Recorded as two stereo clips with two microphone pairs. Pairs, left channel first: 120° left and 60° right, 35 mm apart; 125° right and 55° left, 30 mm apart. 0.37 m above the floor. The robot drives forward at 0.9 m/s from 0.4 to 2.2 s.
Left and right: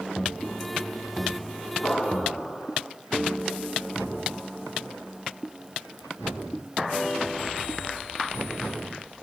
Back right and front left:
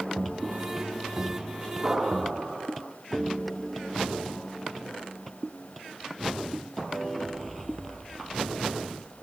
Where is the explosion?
160° left, 7 m.